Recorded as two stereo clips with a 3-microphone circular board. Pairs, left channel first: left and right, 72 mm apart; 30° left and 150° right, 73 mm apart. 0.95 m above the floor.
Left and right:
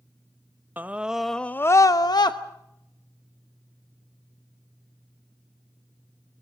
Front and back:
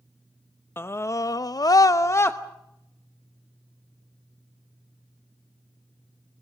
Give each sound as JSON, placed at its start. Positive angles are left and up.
{"t": 0.8, "sound": "a scream", "azimuth_deg": -25, "distance_m": 0.8}